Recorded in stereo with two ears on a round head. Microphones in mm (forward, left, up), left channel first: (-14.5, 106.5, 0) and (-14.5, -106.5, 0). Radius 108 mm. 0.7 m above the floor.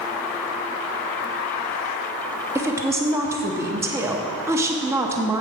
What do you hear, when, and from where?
2.5 s a woman speaking: 10° right (ahead or behind), 0.7 m